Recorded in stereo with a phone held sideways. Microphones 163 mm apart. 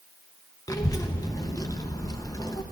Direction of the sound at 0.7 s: 20° left (ahead or behind).